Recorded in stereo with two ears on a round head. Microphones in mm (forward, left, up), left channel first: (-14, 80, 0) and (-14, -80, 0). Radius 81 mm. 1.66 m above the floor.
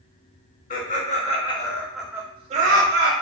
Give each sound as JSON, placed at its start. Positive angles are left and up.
{"t": 0.7, "sound": "laughter", "side_deg": 45, "distance_m": 1.0}